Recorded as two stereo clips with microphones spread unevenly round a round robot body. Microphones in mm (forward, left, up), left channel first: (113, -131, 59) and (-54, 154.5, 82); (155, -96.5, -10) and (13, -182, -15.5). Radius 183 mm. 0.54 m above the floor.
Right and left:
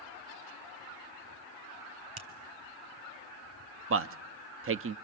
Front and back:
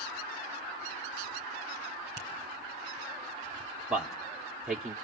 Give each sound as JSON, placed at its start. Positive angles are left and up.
{"t": 2.2, "sound": "a finger snap", "azimuth_deg": 140, "distance_m": 3.5}
{"t": 3.9, "sound": "a man speaking", "azimuth_deg": 130, "distance_m": 0.7}